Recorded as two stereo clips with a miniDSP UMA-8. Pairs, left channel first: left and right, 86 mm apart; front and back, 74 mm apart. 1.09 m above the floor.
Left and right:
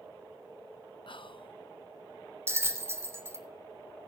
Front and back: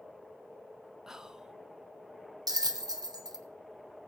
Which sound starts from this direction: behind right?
A bell, at 2.5 s.